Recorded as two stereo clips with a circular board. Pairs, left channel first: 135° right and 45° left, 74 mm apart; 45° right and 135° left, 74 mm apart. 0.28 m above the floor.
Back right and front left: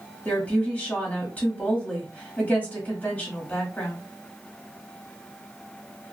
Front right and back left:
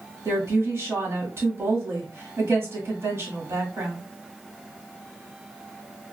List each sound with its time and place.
0.2 s a woman speaking: 165° left, 1.3 m